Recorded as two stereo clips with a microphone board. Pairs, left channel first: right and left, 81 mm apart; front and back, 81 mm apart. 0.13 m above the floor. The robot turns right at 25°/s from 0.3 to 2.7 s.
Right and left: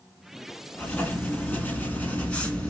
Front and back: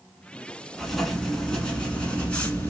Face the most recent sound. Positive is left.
turn(degrees=-40)